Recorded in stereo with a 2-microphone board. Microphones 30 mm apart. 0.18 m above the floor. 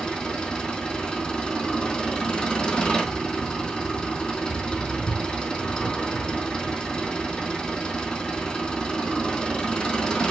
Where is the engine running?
30° left (ahead or behind), 3 m.